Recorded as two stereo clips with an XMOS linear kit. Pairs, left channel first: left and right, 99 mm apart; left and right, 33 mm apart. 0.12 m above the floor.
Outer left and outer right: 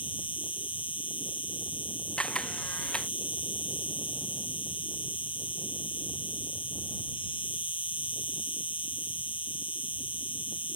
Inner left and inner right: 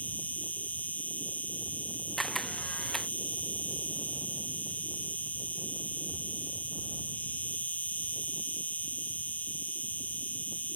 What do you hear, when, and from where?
0.0 s an insect: 60° left (ahead or behind)
2.2 s a camera shutter: 10° left (ahead or behind)